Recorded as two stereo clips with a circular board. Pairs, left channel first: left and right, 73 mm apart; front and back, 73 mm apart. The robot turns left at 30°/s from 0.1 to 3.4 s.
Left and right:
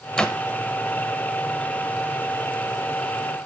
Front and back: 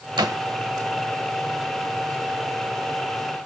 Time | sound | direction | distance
0.2 | a door slam | 165° left | 1.4 m